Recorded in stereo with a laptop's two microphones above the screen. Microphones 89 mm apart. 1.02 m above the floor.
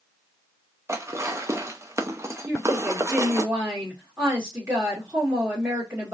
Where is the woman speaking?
30° right (ahead or behind), 1.7 m.